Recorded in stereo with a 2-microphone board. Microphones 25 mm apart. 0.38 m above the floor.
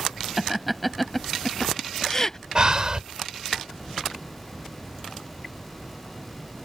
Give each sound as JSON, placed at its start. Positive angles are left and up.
{"t": 0.4, "sound": "laughter", "side_deg": -10}
{"t": 2.5, "sound": "breathing", "side_deg": -35}